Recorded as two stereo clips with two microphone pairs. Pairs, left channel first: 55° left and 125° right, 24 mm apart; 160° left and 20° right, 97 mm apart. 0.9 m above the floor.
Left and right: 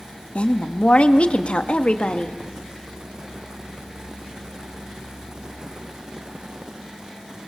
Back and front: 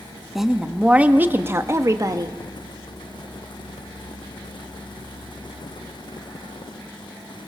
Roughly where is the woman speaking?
Ahead left.